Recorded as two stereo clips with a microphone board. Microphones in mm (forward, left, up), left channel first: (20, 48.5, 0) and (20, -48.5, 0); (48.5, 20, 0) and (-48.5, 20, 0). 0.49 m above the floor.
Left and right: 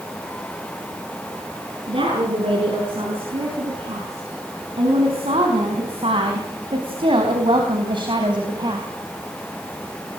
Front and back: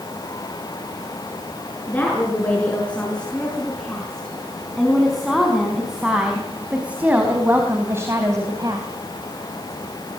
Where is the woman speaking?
75° right, 6.5 m; by 8.9 s 130° right, 3 m.